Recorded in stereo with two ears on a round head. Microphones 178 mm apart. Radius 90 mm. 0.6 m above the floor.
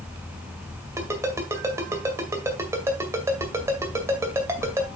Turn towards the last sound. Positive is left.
turn(degrees=-15)  # may be behind; listen again after turning